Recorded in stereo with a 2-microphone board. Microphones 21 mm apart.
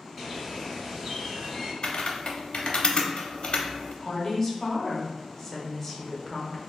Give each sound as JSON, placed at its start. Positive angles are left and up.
{"t": 0.2, "sound": "a bird", "side_deg": -10, "distance_m": 1.9}
{"t": 1.8, "sound": "typing on a keyboard", "side_deg": 60, "distance_m": 0.6}
{"t": 4.0, "sound": "a woman speaking", "side_deg": 20, "distance_m": 0.8}